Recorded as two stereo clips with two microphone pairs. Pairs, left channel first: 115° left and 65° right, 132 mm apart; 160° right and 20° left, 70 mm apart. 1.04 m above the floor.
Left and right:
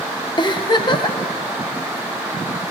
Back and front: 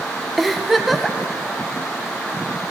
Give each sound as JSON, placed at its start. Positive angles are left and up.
{"t": 0.4, "sound": "a giggle", "azimuth_deg": 110, "distance_m": 0.7}